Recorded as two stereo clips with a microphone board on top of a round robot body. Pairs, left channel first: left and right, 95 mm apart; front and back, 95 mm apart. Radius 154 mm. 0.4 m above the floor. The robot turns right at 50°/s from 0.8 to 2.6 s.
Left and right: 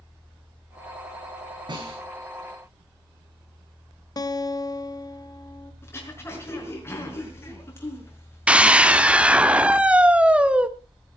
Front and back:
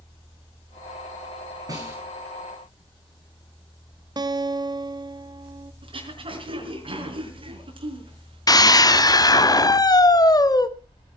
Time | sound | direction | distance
1.7 | a snare drum | 130° right | 10 m
4.2 | a guitar | 140° left | 1.3 m
5.8 | throat clearing | 155° left | 5 m
8.5 | a scream | 15° right | 1.8 m